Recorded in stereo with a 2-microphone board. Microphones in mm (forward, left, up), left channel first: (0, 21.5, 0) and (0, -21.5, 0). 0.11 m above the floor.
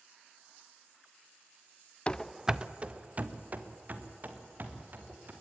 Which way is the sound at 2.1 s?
25° left (ahead or behind).